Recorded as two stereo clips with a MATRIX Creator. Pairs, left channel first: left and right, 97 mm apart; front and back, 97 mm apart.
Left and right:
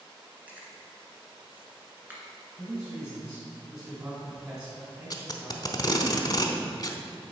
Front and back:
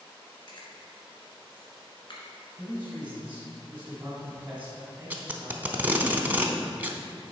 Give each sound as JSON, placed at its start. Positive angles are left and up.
{"t": 0.5, "sound": "chewing", "azimuth_deg": -20, "distance_m": 1.6}
{"t": 2.6, "sound": "a man speaking", "azimuth_deg": -125, "distance_m": 1.6}
{"t": 5.1, "sound": "tape being pulled", "azimuth_deg": 115, "distance_m": 0.7}